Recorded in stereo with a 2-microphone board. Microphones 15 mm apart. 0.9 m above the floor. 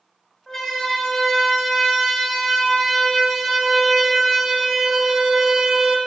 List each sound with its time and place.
0.5 s a siren: 25° left (ahead or behind), 8 m; by 6.0 s 50° right (ahead or behind), 3.5 m